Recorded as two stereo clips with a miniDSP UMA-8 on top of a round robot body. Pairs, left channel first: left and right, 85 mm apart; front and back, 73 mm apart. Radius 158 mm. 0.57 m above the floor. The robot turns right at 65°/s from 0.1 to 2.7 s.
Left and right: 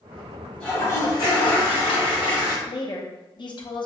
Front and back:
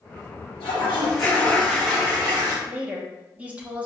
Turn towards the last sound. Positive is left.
turn(degrees=110)